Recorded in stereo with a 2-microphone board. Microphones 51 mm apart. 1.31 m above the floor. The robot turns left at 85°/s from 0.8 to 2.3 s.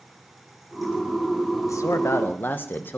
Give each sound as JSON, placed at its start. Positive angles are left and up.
{"t": 1.7, "sound": "a man speaking", "azimuth_deg": 95, "distance_m": 1.0}